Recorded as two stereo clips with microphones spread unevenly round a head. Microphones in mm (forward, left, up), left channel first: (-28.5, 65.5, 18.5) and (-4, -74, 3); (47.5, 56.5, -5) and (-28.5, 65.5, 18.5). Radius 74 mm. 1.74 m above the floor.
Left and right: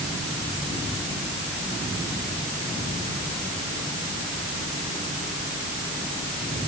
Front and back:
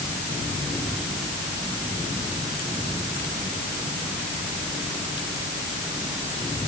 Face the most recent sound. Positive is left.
No sound to turn to.